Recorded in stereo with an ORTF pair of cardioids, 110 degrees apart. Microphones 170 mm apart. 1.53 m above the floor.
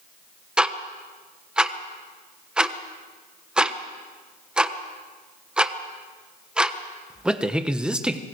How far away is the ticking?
About 1.2 m.